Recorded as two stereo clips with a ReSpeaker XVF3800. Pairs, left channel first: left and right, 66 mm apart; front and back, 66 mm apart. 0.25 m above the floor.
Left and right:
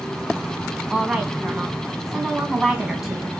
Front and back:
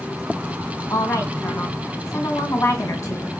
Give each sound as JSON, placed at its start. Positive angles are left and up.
{"t": 0.9, "sound": "a woman speaking", "azimuth_deg": -5, "distance_m": 2.5}